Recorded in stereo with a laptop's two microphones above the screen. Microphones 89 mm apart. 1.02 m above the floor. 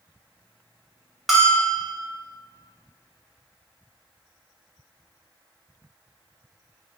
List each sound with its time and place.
1.3 s a bell: centre (ahead or behind), 0.6 m